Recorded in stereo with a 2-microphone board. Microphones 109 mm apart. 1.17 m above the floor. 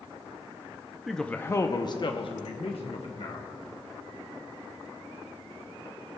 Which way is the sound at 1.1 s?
Centre (ahead or behind).